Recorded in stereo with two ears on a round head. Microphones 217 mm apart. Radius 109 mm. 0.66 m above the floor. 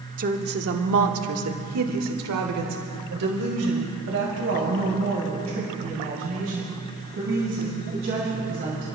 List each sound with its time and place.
0.2 s a woman speaking: 35° right (ahead or behind), 1.2 m; by 9.0 s 50° right (ahead or behind), 6 m